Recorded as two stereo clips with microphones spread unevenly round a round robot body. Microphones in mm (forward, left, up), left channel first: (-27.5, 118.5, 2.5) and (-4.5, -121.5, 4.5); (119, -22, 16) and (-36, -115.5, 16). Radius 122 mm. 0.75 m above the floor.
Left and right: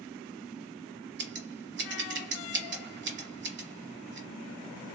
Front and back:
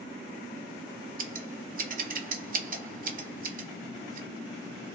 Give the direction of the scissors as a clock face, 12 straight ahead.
4 o'clock.